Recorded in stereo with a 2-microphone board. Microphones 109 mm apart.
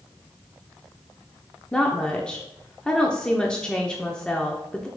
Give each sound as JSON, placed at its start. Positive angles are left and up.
{"t": 1.7, "sound": "a woman speaking", "side_deg": 10, "distance_m": 0.8}